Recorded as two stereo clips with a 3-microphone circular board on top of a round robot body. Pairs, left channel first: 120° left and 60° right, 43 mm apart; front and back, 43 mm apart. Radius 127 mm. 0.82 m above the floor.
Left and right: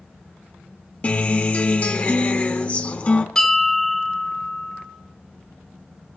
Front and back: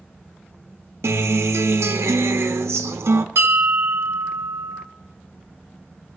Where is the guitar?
Straight behind, 1.0 m.